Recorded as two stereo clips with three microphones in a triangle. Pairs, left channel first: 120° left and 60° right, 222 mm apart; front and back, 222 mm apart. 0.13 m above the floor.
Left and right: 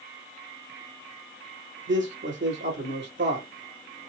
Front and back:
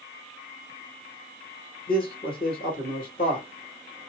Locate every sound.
1.9 s a man speaking: 45° right, 3.5 m